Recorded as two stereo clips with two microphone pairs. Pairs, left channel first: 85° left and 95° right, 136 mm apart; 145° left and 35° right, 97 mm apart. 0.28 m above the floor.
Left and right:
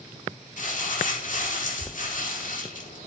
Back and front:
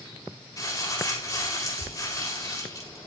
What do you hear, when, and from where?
0.6 s crumpling: 95° left, 7.5 m